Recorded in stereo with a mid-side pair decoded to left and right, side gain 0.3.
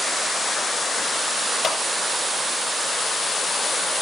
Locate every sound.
1.6 s a clap: 65° left, 7.5 m